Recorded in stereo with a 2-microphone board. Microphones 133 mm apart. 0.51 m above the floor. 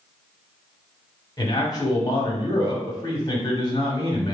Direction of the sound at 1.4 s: 35° left (ahead or behind).